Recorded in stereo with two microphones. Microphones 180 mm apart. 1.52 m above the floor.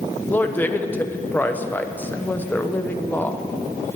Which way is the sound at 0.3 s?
10° left (ahead or behind).